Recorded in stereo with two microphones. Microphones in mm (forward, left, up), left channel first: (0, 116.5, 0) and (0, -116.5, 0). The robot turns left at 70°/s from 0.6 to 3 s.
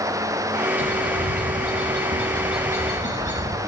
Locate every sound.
0.8 s a bird: 55° right, 5 m; by 3.6 s 150° left, 5 m